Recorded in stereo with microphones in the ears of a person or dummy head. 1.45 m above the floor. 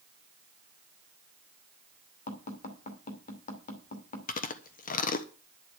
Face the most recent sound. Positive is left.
turn(degrees=45)  # may be behind; listen again after turning